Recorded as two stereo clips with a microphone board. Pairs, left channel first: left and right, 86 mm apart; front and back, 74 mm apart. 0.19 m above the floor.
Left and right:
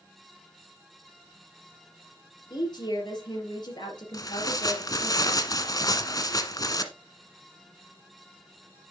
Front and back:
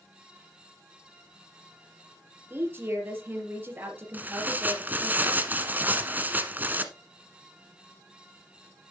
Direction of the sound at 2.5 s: 120° left.